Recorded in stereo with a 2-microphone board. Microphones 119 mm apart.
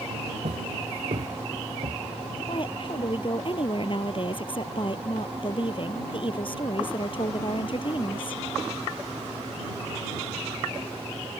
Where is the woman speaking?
45° left (ahead or behind).